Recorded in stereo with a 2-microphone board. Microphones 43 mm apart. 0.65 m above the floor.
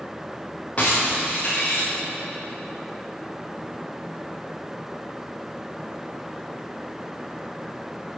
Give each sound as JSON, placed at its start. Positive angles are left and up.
{"t": 0.8, "sound": "breaking glass", "side_deg": 35, "distance_m": 6.0}